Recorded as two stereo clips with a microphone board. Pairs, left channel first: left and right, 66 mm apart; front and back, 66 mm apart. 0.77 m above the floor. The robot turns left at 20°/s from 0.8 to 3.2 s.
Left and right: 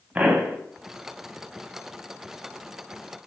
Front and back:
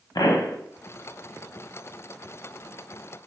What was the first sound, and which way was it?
A pop, 20° right.